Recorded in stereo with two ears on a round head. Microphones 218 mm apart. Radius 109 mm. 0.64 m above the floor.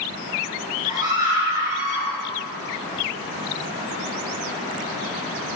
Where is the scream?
15° right (ahead or behind), 8 m.